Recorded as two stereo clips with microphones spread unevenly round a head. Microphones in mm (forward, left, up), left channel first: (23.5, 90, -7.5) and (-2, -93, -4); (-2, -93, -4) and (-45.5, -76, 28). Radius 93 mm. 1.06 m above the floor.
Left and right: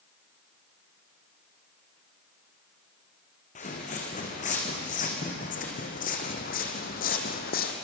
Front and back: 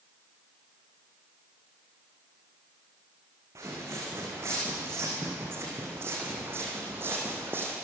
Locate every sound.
3.5 s footsteps: 135° left, 5.5 m; by 7.7 s 125° left, 3 m